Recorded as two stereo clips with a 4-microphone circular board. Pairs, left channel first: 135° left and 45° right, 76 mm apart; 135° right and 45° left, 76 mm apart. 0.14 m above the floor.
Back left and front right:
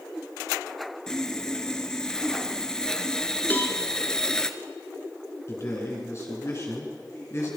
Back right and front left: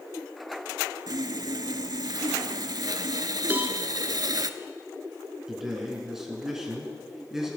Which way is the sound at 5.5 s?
125° left.